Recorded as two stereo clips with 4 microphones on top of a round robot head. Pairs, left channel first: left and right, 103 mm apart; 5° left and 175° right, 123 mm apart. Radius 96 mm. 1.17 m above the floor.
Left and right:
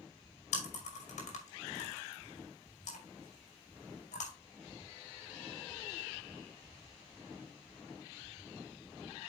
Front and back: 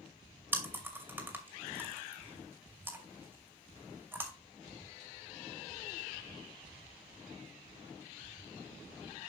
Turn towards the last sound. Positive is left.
turn(degrees=110)